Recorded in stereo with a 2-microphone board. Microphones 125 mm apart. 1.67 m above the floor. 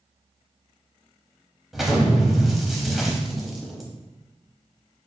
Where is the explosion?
Centre (ahead or behind), 0.7 m.